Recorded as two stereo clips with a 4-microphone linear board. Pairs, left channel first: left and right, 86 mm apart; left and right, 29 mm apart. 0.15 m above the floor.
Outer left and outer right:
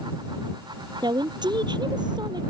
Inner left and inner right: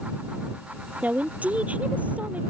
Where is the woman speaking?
60° right (ahead or behind).